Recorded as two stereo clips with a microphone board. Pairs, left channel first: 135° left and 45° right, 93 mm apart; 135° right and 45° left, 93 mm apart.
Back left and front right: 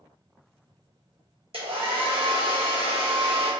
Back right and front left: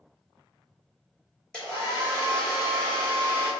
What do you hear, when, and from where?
1.5 s a hair dryer: 55° right, 1.6 m